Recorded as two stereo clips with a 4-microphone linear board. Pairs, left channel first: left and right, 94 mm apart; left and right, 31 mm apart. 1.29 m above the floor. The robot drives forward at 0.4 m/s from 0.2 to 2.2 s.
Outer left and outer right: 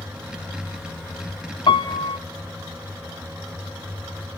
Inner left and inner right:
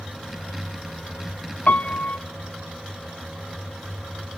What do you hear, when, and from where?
1.7 s a piano: 55° left (ahead or behind), 0.8 m; by 2.2 s 65° left (ahead or behind), 0.8 m